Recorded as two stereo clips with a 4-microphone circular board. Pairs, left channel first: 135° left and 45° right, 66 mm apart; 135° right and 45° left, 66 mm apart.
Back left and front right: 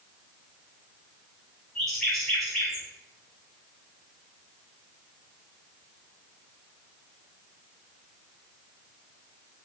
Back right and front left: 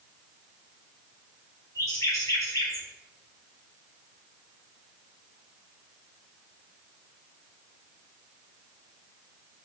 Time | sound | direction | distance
1.8 | a bird | 140° right | 1.9 m